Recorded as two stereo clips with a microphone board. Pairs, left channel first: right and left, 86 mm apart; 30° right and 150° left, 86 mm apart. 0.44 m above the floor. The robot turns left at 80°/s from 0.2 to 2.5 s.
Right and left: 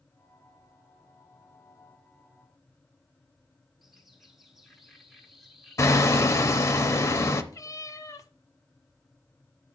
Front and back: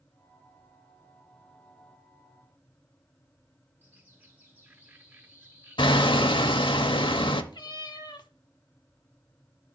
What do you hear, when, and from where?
3.8 s a bird: straight behind, 1.4 m
5.8 s hammering: 35° right, 0.7 m
7.5 s a cat meowing: 45° right, 0.7 m